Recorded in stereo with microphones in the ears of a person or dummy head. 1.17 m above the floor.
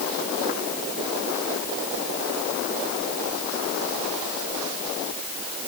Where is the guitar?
I don't hear a guitar.